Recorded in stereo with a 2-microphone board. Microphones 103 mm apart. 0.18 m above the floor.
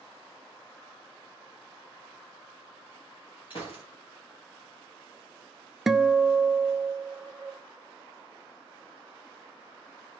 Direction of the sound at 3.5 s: 50° left (ahead or behind).